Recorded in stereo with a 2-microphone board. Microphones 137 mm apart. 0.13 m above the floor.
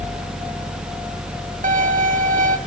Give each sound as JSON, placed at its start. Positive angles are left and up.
{"t": 1.6, "sound": "a violin", "side_deg": -80, "distance_m": 1.4}